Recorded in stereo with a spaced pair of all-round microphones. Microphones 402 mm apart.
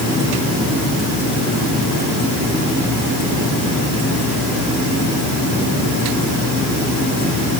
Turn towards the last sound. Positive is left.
No sound to turn to.